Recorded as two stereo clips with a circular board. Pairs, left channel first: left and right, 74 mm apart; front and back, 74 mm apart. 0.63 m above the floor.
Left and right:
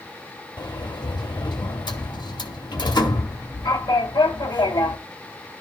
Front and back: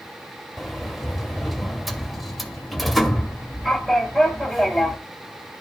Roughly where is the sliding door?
Left.